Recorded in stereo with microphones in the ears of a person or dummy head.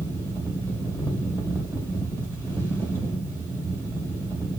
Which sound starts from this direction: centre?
A fan, at 0.0 s.